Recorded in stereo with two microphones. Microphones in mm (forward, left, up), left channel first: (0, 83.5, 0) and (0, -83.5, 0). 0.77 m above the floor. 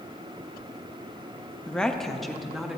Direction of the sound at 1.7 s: 5° left (ahead or behind).